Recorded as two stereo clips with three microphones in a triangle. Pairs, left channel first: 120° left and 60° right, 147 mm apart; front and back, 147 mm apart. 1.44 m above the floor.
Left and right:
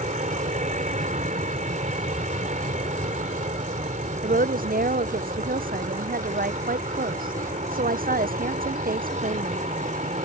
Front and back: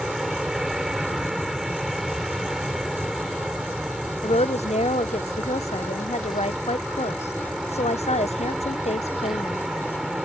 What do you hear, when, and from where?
0.0 s an aircraft: 90° right
4.2 s a woman speaking: 45° right